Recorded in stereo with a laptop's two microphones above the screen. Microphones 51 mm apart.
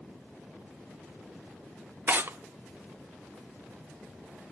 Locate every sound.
2.1 s tearing paper: 45° right (ahead or behind), 0.6 m